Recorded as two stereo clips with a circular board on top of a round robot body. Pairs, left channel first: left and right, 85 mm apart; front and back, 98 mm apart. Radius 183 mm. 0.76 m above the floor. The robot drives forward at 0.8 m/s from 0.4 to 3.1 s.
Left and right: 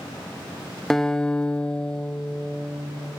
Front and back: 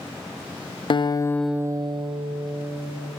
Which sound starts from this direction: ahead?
A guitar, at 0.9 s.